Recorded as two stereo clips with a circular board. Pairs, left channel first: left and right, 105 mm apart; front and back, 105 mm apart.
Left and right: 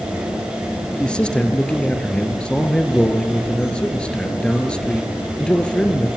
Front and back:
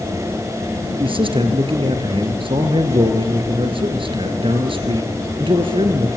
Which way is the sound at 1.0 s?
170° left.